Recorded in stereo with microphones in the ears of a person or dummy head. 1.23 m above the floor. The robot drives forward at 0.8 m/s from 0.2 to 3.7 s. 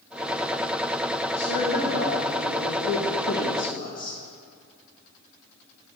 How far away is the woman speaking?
About 1.5 m.